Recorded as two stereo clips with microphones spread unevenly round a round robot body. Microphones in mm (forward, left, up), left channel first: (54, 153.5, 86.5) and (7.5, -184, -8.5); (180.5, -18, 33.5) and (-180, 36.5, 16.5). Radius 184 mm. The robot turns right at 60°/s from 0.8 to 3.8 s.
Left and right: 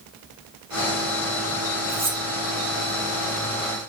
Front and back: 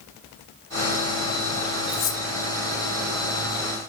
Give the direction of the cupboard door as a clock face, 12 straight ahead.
No cupboard door in this recording.